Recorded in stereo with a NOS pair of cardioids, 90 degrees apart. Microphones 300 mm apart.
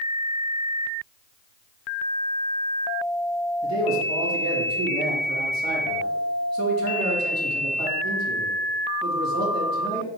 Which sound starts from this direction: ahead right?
A man speaking, at 3.6 s.